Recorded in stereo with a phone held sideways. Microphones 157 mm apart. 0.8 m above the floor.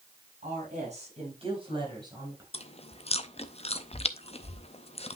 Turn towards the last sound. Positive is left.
turn(degrees=40)  # may be behind; listen again after turning